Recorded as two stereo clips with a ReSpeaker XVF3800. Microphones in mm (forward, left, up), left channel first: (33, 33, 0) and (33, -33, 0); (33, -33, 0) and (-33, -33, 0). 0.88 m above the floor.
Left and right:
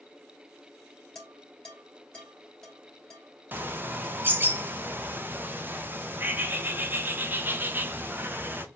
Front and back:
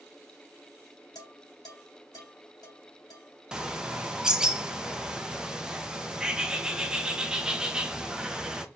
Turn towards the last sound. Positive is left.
turn(degrees=-110)